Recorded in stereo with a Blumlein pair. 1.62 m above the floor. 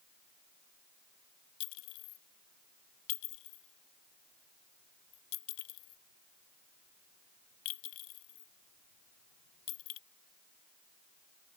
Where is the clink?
45° left.